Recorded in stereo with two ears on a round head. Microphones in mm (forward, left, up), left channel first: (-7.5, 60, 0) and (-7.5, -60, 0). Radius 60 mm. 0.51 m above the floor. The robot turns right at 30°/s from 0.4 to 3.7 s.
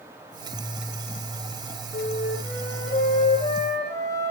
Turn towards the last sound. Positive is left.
turn(degrees=150)